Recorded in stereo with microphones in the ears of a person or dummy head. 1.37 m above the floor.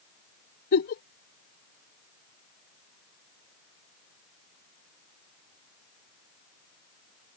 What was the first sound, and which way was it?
A giggle, 55° left (ahead or behind).